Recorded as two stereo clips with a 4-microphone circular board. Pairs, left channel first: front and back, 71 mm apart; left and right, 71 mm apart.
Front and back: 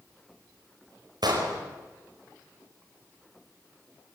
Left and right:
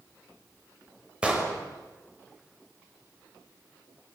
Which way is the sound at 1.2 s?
165° right.